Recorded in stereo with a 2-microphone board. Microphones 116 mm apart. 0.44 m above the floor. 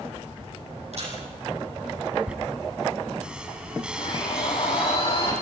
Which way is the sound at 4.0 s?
55° left (ahead or behind).